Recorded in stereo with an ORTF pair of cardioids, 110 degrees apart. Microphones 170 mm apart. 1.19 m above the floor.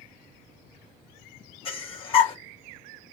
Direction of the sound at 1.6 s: 35° left.